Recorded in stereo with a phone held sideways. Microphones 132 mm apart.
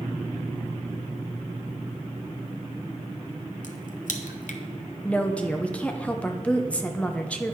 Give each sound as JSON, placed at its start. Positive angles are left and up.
{"t": 3.6, "sound": "a crack", "side_deg": 80, "distance_m": 0.7}
{"t": 5.0, "sound": "a woman speaking", "side_deg": 10, "distance_m": 0.8}